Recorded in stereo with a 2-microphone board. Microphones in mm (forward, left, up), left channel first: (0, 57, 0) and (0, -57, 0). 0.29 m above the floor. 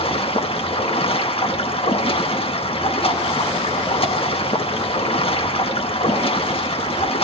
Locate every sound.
0.0 s running water: 55° left (ahead or behind), 1.3 m